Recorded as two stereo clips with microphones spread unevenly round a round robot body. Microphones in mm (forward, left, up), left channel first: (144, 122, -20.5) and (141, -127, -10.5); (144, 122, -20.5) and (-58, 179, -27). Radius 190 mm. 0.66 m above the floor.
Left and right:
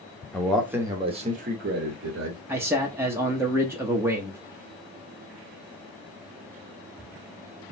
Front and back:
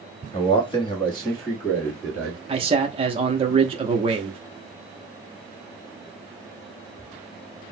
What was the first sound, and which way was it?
A man speaking, 15° left.